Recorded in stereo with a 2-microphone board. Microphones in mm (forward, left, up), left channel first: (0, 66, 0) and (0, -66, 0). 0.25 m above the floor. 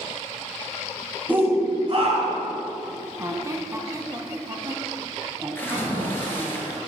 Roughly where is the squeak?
Right.